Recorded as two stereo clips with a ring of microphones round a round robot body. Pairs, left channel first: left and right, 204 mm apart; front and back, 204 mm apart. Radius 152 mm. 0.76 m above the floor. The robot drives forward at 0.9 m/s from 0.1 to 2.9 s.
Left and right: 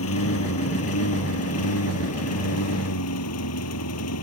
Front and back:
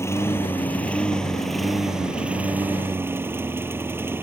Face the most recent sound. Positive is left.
turn(degrees=100)